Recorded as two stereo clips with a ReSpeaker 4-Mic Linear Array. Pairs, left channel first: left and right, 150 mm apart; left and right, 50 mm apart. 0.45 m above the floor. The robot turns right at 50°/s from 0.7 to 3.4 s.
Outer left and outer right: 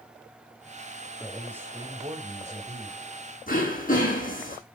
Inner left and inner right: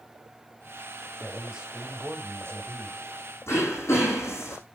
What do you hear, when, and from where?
1.2 s a man speaking: 175° left, 2 m; by 3.0 s 95° right, 2 m
3.5 s throat clearing: 65° left (ahead or behind), 5 m